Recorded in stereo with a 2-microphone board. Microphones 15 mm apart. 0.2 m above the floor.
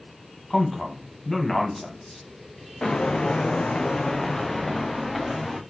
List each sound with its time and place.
0.5 s a man speaking: 15° left (ahead or behind), 1.1 m
2.8 s footsteps: 70° left (ahead or behind), 0.7 m; by 5.6 s 5° right (ahead or behind), 1.5 m